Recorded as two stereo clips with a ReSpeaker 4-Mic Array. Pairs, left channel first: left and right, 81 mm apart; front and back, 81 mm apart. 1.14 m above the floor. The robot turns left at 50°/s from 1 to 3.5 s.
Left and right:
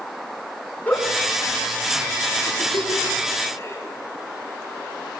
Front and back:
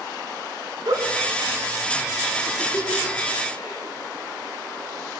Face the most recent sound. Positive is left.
turn(degrees=35)